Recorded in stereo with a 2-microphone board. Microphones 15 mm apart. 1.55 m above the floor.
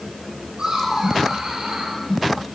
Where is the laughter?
50° right (ahead or behind), 9.5 m.